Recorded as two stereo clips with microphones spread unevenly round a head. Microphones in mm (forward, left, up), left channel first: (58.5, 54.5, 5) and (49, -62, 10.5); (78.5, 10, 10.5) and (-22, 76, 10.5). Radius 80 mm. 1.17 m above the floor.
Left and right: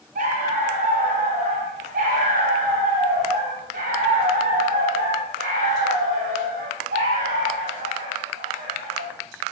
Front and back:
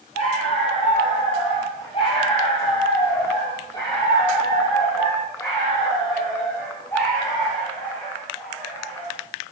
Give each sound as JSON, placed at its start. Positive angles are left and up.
{"t": 0.1, "sound": "a dog barking", "azimuth_deg": -90, "distance_m": 8.5}